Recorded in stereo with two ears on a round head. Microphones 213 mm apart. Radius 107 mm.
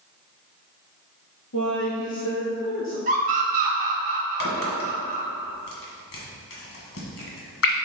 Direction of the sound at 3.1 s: 35° right (ahead or behind).